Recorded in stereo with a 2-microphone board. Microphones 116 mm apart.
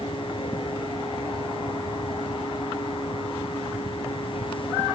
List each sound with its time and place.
Only background noise.